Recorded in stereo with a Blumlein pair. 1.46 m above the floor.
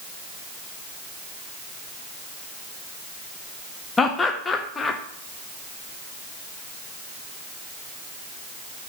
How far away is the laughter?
About 0.6 m.